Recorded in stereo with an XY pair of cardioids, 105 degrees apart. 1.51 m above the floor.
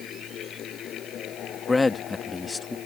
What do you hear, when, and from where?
0.0 s a fan: 70° left
1.7 s a man speaking: 25° left